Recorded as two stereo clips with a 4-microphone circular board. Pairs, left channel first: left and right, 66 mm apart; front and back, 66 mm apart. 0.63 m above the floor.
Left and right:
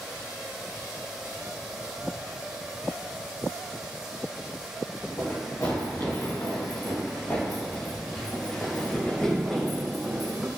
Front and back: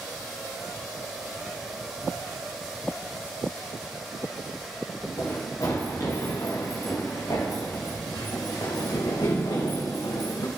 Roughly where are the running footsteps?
Ahead left.